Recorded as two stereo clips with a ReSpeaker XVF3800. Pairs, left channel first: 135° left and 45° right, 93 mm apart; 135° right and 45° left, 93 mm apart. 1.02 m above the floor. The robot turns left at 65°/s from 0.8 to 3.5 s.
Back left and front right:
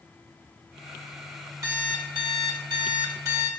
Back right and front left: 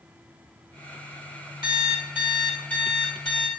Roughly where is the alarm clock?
Ahead.